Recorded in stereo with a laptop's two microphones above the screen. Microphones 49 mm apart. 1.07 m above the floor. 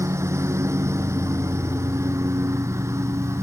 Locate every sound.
0.0 s a lawn mower: 75° right (ahead or behind)